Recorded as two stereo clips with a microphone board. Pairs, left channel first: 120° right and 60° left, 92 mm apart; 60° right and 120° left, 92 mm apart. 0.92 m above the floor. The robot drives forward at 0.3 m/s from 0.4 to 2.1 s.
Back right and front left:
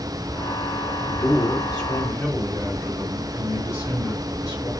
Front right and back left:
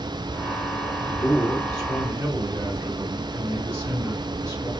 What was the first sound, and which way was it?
A man speaking, 175° right.